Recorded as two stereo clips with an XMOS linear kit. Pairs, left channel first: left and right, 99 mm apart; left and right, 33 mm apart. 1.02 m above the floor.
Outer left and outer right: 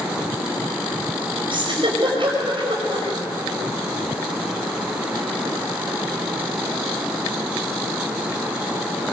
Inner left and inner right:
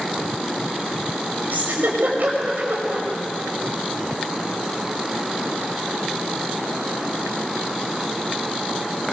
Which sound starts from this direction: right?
A giggle, at 1.5 s.